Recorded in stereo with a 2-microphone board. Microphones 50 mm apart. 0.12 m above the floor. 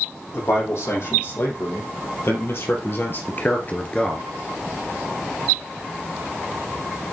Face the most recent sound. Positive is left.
turn(degrees=10)  # may be behind; listen again after turning